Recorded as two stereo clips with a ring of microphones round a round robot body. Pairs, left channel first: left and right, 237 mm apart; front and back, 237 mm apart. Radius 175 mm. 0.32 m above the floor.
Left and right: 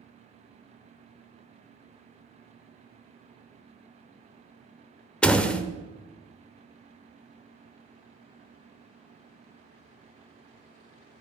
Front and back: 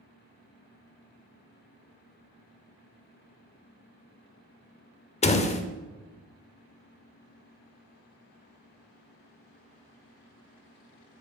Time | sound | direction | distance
5.2 | a door slam | 10° left | 0.5 m